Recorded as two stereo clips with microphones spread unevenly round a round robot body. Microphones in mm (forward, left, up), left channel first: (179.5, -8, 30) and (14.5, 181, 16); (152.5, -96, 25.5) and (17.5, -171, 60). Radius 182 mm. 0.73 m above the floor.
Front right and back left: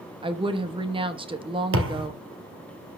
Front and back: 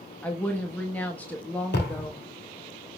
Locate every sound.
0.2 s a woman speaking: 80° left, 1.2 m
1.7 s a thud: 95° left, 2 m